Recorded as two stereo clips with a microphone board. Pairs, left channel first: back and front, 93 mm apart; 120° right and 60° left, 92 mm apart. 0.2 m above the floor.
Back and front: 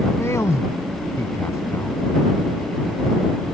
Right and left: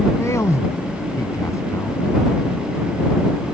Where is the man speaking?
150° right.